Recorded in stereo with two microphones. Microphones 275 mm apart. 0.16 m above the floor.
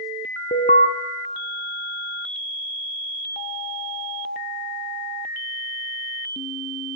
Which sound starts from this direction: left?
An alarm, at 0.5 s.